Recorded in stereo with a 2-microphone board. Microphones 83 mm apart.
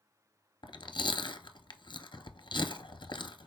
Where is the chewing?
70° left (ahead or behind), 0.6 m.